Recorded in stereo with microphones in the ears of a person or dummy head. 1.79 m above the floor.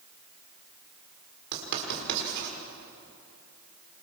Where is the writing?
60° right (ahead or behind), 5.5 m.